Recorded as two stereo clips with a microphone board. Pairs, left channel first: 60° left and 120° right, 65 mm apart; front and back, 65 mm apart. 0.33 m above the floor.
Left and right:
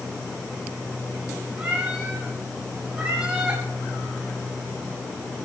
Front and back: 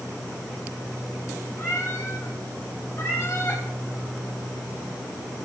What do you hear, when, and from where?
1.6 s a cat meowing: 50° right, 4.5 m